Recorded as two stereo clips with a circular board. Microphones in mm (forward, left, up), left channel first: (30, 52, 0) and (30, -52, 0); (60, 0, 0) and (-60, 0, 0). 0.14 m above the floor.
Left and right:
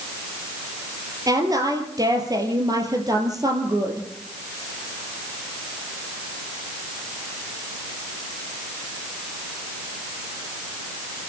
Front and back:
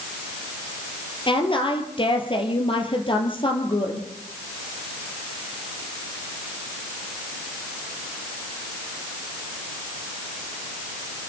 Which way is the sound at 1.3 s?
40° right.